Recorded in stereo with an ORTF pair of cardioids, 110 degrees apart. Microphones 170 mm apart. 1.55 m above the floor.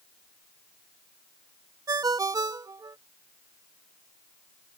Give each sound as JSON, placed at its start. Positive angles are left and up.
{"t": 1.9, "sound": "a ringtone", "azimuth_deg": -20}